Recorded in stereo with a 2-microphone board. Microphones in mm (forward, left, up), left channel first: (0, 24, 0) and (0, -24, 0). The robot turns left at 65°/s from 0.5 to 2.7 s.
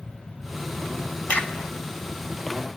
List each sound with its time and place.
1.3 s a crack: 30° left (ahead or behind), 0.7 m; by 2.8 s 55° right (ahead or behind), 0.7 m